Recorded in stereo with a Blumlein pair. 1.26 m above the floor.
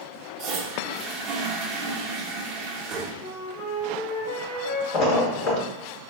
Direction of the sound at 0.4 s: 35° right.